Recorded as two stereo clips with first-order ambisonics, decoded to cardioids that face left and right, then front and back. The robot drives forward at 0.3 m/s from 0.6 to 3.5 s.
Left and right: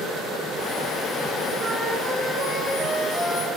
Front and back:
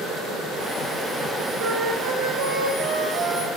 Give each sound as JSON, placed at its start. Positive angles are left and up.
{"t": 1.6, "sound": "a flute", "azimuth_deg": -160, "distance_m": 2.5}